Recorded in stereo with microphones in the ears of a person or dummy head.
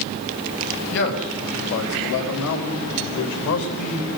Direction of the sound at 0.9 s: 65° left (ahead or behind).